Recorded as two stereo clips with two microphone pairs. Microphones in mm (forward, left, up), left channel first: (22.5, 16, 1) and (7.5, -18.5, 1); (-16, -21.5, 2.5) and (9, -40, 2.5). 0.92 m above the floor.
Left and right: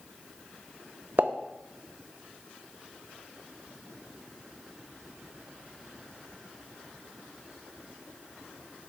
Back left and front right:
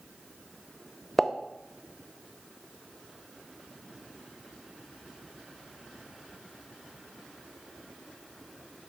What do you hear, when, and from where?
1.2 s a pop: 130° right, 0.8 m